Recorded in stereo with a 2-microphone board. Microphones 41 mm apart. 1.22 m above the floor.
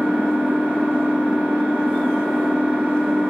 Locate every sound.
0.0 s an engine running: 25° right (ahead or behind), 3 m